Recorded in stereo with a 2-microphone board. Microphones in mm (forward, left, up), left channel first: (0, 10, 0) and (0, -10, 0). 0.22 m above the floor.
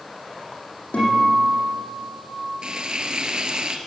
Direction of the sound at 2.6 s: 40° right (ahead or behind).